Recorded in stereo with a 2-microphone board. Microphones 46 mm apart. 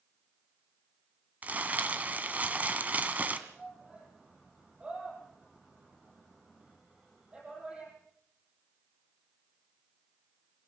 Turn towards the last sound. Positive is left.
turn(degrees=-20)  # may be behind; listen again after turning